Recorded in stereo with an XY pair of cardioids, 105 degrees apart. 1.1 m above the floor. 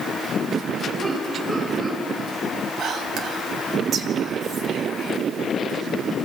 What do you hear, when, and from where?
1.0 s laughter: 50° right, 9 m
2.8 s whispering: 65° right, 2.5 m